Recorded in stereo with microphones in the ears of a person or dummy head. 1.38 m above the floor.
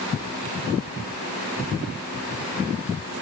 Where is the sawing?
I don't hear sawing.